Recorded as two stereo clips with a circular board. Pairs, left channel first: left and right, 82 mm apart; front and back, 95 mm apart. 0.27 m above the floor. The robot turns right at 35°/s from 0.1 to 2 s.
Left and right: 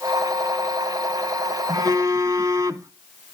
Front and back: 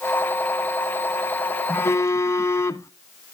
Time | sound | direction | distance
1.7 | a phone buzzing | 65° right | 0.7 m